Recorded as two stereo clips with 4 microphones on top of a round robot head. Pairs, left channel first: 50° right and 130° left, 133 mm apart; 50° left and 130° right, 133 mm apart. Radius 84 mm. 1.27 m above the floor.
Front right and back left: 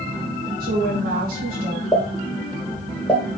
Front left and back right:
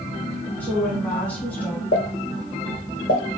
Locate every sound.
0.6 s a woman speaking: 130° left, 3 m
1.9 s a pop: 30° left, 2 m